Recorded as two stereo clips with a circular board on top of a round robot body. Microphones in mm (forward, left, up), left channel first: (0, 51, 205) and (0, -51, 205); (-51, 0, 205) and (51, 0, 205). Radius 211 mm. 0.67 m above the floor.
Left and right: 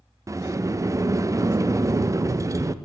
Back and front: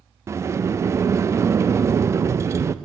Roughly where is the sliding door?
Ahead right.